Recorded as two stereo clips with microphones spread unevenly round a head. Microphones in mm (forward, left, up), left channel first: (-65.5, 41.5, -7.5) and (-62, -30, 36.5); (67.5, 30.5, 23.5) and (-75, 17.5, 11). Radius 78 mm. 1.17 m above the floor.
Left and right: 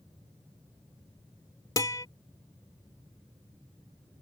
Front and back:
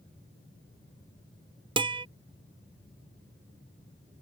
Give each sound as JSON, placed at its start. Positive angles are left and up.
{"t": 1.8, "sound": "a guitar", "azimuth_deg": 130}